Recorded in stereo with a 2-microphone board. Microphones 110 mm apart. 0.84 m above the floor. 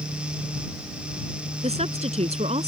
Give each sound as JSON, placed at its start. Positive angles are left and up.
{"t": 1.6, "sound": "a woman speaking", "side_deg": -85}